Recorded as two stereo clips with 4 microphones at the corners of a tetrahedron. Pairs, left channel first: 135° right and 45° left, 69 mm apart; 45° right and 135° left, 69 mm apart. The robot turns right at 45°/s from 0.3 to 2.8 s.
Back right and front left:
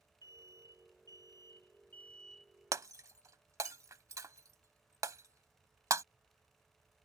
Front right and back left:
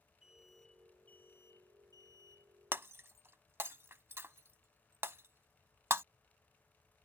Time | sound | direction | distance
0.2 | an alarm | 145° right | ?
2.7 | breaking glass | 80° left | ?